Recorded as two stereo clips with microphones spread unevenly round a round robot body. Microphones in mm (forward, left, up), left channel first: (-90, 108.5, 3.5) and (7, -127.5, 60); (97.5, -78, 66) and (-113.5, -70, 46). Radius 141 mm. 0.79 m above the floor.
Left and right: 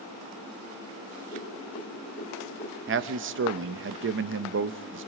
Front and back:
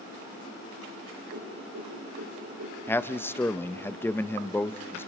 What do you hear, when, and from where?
1.3 s a whoosh: 175° left, 8.5 m
2.9 s a man speaking: 85° right, 0.7 m